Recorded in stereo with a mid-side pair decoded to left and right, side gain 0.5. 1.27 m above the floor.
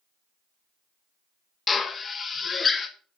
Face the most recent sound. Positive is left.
turn(degrees=35)